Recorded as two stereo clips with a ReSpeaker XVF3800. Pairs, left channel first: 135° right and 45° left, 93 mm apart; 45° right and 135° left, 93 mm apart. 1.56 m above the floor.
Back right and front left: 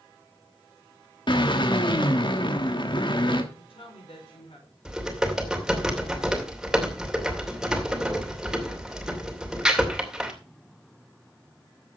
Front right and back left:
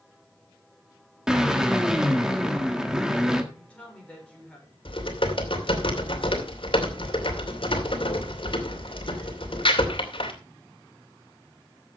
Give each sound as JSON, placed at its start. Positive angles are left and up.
{"t": 1.3, "sound": "a drill", "azimuth_deg": -140, "distance_m": 1.5}
{"t": 3.5, "sound": "a woman speaking", "azimuth_deg": -120, "distance_m": 6.5}
{"t": 4.8, "sound": "typing on a keyboard", "azimuth_deg": -40, "distance_m": 2.5}